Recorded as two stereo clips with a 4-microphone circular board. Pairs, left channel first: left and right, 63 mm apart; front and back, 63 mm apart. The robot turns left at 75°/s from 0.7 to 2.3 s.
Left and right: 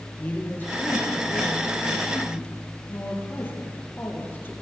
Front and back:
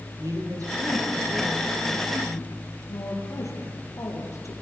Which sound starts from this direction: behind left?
A woman speaking, at 0.2 s.